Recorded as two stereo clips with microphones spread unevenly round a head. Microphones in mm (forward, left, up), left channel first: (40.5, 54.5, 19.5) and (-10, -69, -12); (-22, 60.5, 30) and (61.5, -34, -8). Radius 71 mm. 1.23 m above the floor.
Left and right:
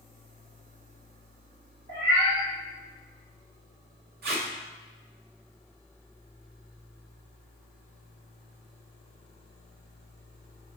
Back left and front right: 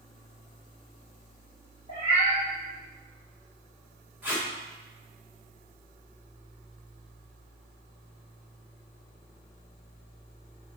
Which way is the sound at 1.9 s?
100° right.